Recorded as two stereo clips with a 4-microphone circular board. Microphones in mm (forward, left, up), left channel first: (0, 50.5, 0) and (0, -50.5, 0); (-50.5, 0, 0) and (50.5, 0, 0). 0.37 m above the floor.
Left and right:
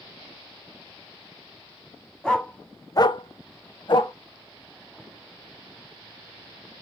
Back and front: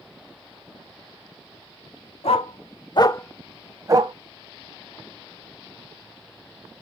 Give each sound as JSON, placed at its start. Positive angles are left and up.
{"t": 2.2, "sound": "a dog barking", "azimuth_deg": 170, "distance_m": 1.0}